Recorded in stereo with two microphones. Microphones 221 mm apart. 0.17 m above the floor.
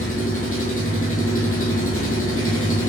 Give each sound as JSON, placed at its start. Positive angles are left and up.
{"t": 0.0, "sound": "an engine running", "side_deg": 80, "distance_m": 1.3}